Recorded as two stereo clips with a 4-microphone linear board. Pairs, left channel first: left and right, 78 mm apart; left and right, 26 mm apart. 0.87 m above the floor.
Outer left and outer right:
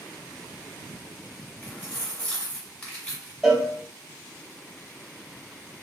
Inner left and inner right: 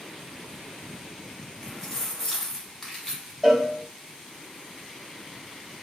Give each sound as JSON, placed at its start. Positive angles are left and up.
{"t": 1.6, "sound": "keys jangling", "side_deg": 20, "distance_m": 1.2}
{"t": 3.4, "sound": "a cowbell", "side_deg": -10, "distance_m": 0.6}